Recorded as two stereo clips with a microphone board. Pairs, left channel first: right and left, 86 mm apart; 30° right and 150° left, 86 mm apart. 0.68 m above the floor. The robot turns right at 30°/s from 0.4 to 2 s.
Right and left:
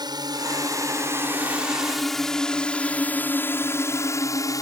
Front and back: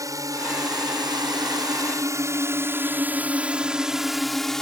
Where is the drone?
110° left; by 4.6 s 110° right.